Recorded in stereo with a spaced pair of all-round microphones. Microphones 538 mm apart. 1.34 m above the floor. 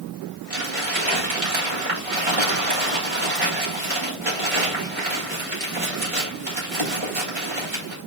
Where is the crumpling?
70° right (ahead or behind), 6 m.